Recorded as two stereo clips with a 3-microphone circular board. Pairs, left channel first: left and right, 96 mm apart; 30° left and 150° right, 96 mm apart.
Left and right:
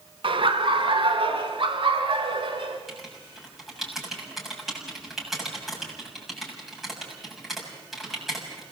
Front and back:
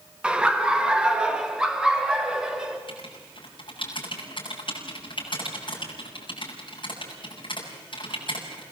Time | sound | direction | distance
0.2 | laughter | 70° right | 1.4 m
2.9 | writing | straight ahead | 7 m